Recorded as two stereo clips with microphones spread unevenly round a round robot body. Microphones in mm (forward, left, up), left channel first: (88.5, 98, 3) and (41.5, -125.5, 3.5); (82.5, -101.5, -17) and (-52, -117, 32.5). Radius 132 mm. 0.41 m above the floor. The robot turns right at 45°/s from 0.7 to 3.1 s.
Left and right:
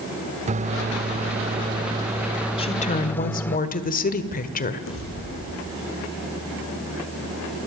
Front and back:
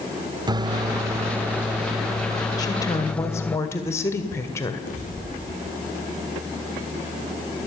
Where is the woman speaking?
20° left, 1.8 m; by 4.8 s 45° left, 1.8 m.